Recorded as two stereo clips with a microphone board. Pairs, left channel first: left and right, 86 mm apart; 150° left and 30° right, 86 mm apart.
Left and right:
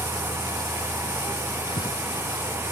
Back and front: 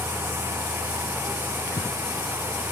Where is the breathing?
85° left, 1.0 m.